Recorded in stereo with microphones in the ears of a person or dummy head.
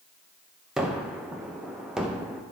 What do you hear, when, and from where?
0.8 s a gunshot: 5° right (ahead or behind), 0.6 m